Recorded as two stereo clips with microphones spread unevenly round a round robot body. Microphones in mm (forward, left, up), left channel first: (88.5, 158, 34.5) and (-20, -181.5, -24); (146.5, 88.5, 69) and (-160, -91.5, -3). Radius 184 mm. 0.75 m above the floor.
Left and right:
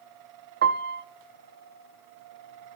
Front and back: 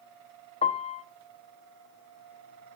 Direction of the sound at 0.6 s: 45° right.